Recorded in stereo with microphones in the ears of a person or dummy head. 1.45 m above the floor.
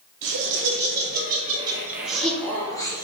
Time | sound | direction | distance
0.2 | laughter | 60° right (ahead or behind) | 0.8 m